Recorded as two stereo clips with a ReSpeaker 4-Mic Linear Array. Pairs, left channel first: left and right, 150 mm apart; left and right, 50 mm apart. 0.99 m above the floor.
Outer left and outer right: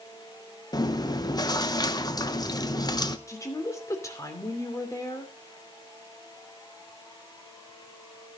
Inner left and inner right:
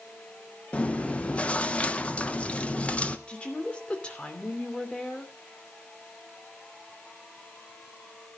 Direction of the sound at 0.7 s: 25° left (ahead or behind).